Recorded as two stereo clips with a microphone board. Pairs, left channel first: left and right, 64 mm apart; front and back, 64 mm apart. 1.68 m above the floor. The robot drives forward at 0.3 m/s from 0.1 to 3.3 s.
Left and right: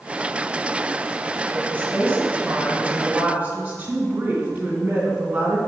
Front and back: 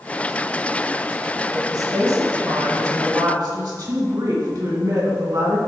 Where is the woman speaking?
150° right, 1.6 m; by 5.6 s 155° right, 2 m.